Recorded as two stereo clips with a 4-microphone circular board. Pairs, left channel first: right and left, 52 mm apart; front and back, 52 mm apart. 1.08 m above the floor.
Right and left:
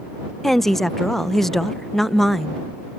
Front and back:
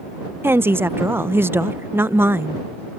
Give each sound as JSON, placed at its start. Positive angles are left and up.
{"t": 0.4, "sound": "a woman speaking", "azimuth_deg": -175}